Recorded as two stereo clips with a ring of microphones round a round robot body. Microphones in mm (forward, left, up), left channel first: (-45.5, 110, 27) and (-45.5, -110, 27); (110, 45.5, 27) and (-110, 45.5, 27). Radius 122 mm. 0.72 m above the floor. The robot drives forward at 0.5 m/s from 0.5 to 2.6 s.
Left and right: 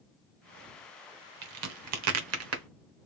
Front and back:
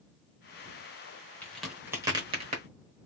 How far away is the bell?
No bell in this recording.